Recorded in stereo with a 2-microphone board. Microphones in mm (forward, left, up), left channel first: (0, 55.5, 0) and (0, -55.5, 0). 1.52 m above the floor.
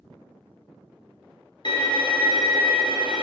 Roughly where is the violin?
Left.